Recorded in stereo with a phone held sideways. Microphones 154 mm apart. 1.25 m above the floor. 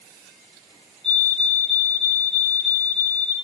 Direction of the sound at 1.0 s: 45° left (ahead or behind).